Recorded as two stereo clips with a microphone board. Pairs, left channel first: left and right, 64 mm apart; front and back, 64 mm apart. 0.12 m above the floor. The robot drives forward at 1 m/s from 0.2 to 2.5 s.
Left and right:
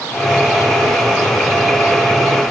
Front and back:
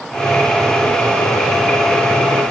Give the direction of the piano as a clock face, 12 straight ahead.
No piano in this recording.